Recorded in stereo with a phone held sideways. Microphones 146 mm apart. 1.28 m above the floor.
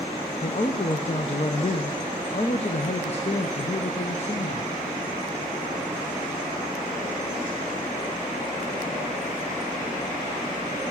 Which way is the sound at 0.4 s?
45° left (ahead or behind).